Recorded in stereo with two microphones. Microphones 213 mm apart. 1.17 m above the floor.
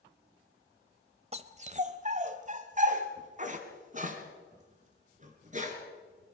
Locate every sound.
1.3 s a dog barking: 30° right (ahead or behind), 1.0 m; by 5.8 s 35° right (ahead or behind), 4 m